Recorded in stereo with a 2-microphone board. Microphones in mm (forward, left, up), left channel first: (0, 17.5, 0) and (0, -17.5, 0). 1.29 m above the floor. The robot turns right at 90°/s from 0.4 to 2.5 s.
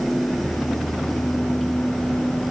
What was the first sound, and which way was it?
Only background noise.